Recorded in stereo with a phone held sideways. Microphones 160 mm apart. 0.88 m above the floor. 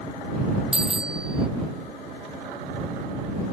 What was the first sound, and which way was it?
A bicycle bell, 5° right (ahead or behind).